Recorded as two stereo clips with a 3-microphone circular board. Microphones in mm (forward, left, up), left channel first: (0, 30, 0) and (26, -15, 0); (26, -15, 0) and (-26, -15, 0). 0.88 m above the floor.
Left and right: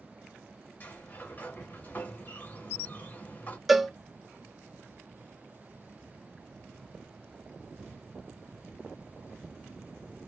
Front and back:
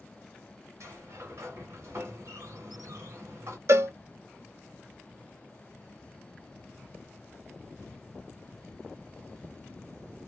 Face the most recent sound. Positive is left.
turn(degrees=-150)